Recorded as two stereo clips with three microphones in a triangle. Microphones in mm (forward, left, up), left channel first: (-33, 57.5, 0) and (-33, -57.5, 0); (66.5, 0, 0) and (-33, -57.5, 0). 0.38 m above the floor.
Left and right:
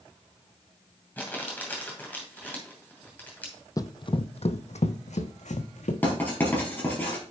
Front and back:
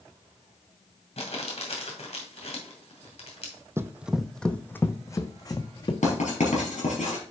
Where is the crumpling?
15° left, 2.5 m.